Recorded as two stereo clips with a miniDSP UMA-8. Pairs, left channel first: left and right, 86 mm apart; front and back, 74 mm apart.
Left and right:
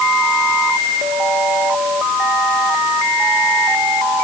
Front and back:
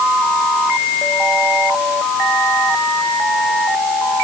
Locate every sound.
Only background noise.